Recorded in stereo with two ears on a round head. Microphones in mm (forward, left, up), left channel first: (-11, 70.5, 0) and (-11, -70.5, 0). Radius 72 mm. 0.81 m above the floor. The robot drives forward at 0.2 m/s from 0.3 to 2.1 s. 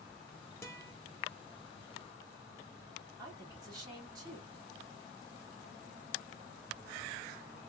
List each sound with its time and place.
0.6 s a guitar: 20° left (ahead or behind), 0.9 m
3.2 s a woman speaking: 25° right (ahead or behind), 2 m